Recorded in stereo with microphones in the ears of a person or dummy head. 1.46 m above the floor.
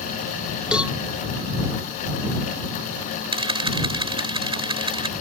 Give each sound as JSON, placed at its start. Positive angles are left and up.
{"t": 0.7, "sound": "a cowbell", "side_deg": -5}
{"t": 3.3, "sound": "a camera shutter", "side_deg": -25}